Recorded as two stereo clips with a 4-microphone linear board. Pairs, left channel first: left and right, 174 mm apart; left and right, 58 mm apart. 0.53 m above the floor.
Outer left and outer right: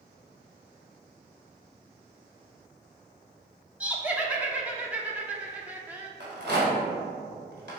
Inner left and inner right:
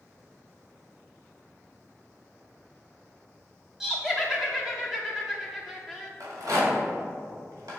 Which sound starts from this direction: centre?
Laughter, at 3.8 s.